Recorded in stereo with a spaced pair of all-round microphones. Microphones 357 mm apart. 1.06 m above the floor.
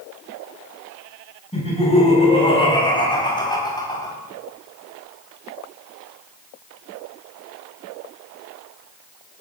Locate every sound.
1.5 s laughter: 15° left (ahead or behind), 10 m; by 4.2 s 10° left (ahead or behind), 8 m